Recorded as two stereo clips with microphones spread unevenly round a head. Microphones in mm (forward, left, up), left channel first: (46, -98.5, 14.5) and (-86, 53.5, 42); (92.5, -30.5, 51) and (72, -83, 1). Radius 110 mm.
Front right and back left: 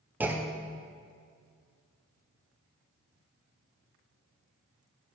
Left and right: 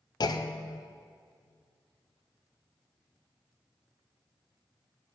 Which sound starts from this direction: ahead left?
A clunk, at 0.2 s.